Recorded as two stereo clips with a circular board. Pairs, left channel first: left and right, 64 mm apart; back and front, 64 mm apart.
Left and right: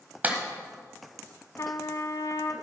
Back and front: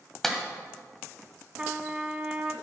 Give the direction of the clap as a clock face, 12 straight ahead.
3 o'clock.